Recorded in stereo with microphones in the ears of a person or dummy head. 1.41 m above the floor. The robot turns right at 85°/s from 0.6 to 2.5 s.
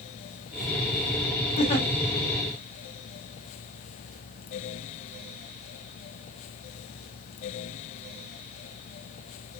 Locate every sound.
1.6 s a giggle: 45° left (ahead or behind), 1.1 m; by 1.9 s 15° left (ahead or behind), 1.1 m